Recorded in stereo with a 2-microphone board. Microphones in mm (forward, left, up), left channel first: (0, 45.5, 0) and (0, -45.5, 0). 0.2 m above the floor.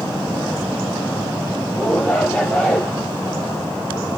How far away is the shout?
About 4.5 m.